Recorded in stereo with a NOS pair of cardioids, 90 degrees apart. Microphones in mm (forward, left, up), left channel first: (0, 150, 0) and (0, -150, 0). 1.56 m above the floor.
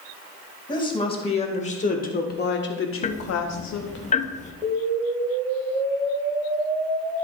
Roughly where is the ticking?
Ahead left.